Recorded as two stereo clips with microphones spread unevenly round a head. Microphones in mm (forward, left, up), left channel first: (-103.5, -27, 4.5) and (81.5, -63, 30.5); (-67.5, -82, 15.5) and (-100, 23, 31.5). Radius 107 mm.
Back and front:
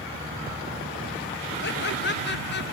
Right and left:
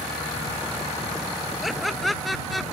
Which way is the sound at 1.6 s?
165° right.